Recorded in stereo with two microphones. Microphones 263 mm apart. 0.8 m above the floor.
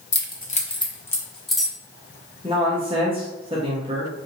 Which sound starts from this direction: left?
Keys jangling, at 0.1 s.